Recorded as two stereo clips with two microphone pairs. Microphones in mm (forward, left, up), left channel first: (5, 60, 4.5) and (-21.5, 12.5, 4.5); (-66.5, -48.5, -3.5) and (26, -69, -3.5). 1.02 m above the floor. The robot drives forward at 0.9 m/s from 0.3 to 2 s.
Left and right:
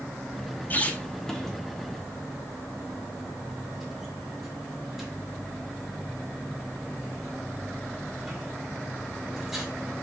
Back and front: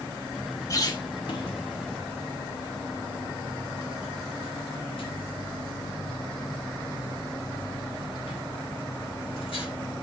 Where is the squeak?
115° left, 0.9 m; by 9.7 s 155° left, 1.8 m.